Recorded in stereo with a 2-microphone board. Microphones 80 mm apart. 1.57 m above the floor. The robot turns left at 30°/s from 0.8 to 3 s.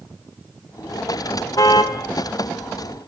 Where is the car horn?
45° left (ahead or behind), 2 m; by 2.0 s 55° left (ahead or behind), 2 m.